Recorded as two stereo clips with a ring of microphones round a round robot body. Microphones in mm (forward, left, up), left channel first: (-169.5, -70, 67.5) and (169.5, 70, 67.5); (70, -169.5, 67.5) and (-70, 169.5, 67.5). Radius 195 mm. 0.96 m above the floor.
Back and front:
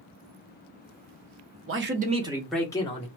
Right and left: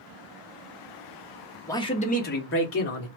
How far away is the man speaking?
About 0.7 m.